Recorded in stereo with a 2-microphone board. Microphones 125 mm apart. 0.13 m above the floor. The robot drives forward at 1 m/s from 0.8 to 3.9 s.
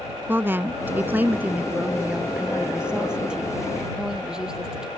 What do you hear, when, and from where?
0.3 s a woman speaking: 15° right (ahead or behind); by 4.9 s 5° right (ahead or behind)